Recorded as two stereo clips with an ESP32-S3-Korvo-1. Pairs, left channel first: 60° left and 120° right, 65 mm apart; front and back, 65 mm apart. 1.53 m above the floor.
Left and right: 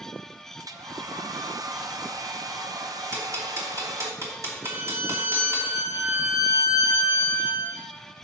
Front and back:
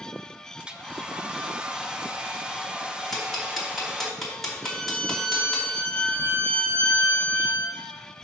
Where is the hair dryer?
105° right, 0.6 m.